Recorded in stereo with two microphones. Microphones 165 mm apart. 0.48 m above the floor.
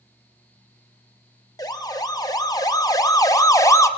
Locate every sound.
1.6 s a siren: 25° left (ahead or behind), 2.5 m; by 3.9 s 20° left (ahead or behind), 1.7 m